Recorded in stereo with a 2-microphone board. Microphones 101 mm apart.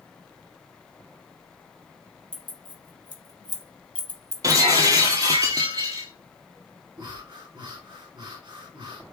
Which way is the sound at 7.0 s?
45° right (ahead or behind).